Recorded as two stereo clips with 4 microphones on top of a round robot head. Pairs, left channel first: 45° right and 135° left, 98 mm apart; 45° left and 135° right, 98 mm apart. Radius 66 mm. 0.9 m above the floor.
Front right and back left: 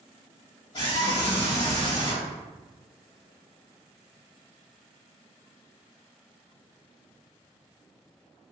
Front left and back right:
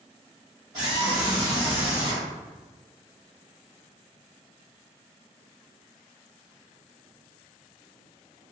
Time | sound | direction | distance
0.7 | a scream | 85° right | 1.8 m